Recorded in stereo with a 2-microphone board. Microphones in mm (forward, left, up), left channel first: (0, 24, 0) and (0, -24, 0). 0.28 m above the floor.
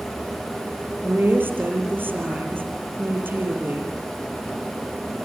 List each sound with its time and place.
1.0 s a woman speaking: 45° right (ahead or behind), 7 m